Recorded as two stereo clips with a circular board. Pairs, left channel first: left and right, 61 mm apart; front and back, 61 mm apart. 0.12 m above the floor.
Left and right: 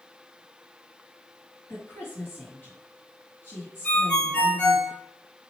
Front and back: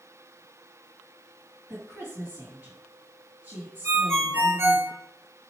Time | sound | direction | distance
1.7 | a woman speaking | 120° left | 2 m
3.8 | a ringtone | 150° left | 1.1 m